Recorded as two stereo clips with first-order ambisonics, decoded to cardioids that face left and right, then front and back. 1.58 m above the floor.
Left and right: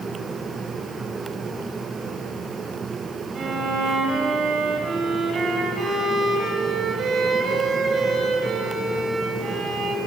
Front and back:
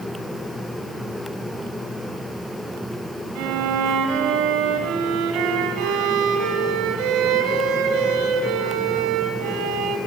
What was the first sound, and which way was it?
A violin, 160° right.